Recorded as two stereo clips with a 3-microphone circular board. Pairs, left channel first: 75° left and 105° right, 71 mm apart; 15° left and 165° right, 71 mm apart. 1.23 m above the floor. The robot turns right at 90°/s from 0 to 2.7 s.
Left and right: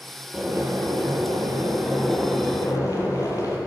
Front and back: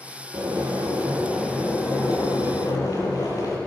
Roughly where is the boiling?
Behind.